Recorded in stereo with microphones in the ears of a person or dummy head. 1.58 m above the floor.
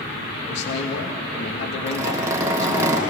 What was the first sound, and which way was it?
A man speaking, 70° left (ahead or behind).